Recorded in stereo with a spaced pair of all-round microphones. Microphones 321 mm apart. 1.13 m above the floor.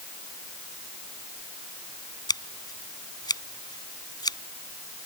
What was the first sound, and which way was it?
Scissors, 10° left (ahead or behind).